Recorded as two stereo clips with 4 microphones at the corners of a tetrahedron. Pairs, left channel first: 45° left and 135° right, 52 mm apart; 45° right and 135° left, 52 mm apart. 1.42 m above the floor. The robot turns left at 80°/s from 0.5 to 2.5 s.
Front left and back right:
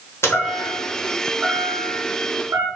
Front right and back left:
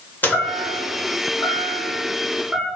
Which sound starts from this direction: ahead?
A chime, at 0.2 s.